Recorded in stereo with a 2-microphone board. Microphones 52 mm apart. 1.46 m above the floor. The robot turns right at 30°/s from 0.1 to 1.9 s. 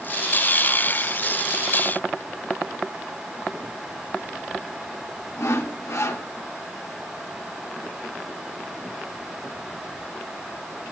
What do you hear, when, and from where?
5.4 s sawing: 70° left (ahead or behind), 2.0 m